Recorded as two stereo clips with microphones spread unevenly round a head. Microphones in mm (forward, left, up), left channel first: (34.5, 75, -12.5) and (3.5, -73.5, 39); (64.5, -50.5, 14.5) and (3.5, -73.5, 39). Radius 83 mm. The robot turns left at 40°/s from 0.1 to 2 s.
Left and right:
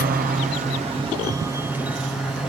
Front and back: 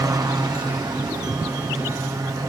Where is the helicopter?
135° right; by 2.5 s 150° left.